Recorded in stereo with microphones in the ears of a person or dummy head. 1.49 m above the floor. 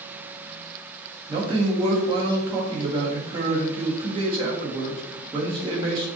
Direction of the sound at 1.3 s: 20° right (ahead or behind).